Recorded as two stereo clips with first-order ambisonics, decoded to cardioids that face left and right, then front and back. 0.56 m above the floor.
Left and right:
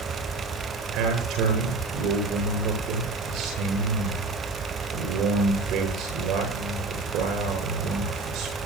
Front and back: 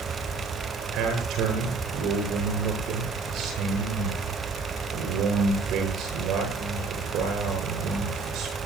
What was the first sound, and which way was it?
A man speaking, 130° right.